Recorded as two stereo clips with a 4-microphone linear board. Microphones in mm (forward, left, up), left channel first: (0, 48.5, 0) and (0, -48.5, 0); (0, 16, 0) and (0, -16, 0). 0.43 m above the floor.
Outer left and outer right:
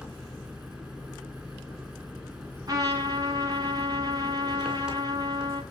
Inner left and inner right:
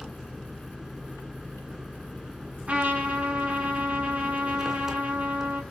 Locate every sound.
0.0 s an engine running: 10° right (ahead or behind), 3.5 m
2.7 s a trumpet: 40° right (ahead or behind), 5 m